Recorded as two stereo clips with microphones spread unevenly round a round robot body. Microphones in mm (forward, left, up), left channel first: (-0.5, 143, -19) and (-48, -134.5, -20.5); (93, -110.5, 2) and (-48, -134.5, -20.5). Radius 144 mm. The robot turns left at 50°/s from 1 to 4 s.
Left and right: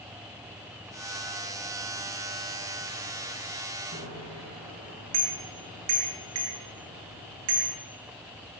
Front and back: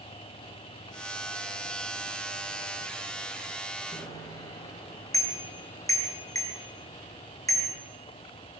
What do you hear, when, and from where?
3.9 s a bicycle bell: 55° right, 8.5 m; by 7.8 s 60° right, 8.5 m